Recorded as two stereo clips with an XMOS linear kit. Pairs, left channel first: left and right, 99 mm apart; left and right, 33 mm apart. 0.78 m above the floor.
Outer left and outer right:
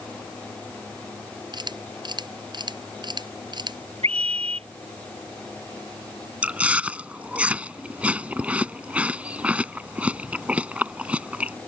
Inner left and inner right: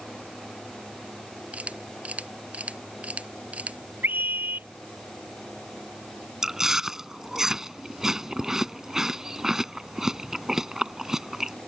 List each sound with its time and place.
1.5 s a camera shutter: 45° right (ahead or behind)
4.0 s a scream: 90° right
6.4 s chewing: 15° right (ahead or behind)